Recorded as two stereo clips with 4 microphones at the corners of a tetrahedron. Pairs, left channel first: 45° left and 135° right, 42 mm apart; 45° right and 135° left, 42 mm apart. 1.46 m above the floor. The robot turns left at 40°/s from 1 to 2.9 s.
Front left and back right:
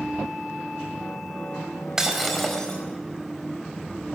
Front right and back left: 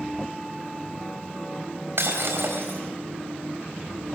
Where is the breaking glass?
150° left, 4 m; by 2.8 s 115° left, 4 m.